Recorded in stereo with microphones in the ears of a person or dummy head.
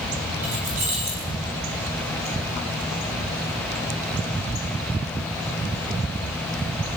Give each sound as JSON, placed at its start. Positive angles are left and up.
{"t": 0.4, "sound": "keys jangling", "side_deg": -40, "distance_m": 6.0}